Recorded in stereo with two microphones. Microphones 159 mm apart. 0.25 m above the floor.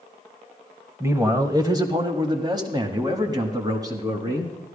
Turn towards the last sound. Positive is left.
turn(degrees=-20)  # may be behind; listen again after turning